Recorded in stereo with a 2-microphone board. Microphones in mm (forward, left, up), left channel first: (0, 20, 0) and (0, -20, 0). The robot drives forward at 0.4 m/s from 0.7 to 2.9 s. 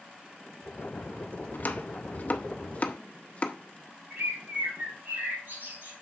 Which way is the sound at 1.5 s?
45° left (ahead or behind).